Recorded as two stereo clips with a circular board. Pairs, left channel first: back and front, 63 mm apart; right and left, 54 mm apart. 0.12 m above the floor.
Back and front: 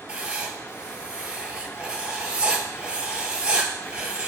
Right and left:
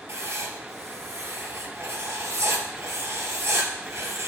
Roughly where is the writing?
Left.